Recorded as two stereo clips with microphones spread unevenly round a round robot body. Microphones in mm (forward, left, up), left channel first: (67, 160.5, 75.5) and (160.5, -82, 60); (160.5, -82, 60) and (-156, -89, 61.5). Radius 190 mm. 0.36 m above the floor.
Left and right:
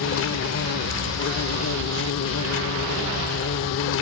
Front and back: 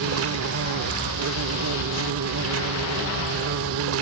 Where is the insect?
145° left.